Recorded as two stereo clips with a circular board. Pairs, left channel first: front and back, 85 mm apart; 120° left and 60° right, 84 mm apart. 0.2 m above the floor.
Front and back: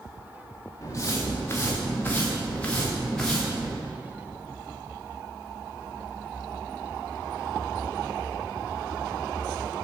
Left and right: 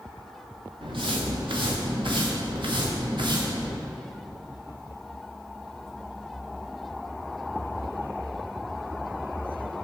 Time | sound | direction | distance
0.8 | footsteps | 55° right | 2.0 m